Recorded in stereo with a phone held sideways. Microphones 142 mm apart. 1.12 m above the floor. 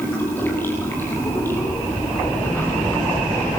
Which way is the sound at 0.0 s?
15° left (ahead or behind).